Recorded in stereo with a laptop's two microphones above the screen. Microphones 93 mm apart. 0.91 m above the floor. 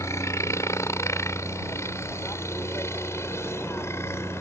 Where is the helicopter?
30° left (ahead or behind).